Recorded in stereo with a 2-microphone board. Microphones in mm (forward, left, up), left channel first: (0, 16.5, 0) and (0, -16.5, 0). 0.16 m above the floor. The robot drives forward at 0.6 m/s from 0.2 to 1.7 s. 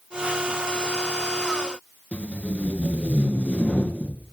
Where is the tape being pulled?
40° left (ahead or behind), 1.0 m.